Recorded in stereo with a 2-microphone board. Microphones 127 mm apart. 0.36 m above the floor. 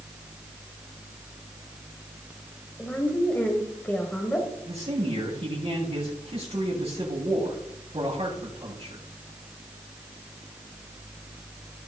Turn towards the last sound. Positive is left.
turn(degrees=-50)  # may be behind; listen again after turning